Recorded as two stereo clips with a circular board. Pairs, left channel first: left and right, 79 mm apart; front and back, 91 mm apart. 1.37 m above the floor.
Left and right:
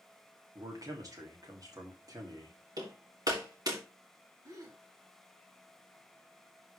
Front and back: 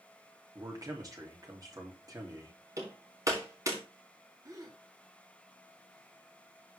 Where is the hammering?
125° right, 3.5 m.